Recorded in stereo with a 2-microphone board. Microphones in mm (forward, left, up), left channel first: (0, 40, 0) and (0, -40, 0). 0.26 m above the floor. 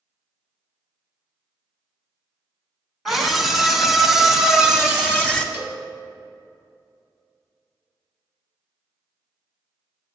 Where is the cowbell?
25° right (ahead or behind), 1.9 m.